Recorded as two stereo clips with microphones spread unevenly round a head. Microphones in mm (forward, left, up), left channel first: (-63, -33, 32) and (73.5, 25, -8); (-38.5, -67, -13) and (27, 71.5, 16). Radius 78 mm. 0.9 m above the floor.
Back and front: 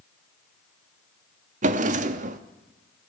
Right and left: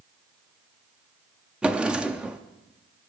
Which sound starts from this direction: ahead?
A drawer, at 1.6 s.